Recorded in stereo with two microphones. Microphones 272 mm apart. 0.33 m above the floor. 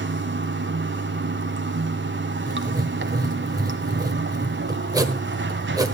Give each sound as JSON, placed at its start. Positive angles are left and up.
{"t": 0.0, "sound": "running water", "side_deg": -45, "distance_m": 1.0}
{"t": 2.5, "sound": "writing", "side_deg": -15, "distance_m": 1.3}